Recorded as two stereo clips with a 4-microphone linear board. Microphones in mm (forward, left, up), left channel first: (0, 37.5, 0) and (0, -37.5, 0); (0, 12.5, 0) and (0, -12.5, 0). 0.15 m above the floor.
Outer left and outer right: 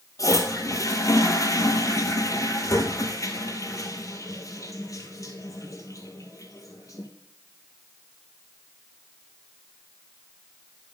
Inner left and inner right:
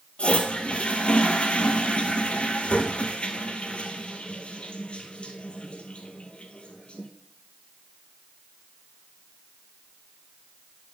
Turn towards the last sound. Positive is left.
turn(degrees=50)  # may be behind; listen again after turning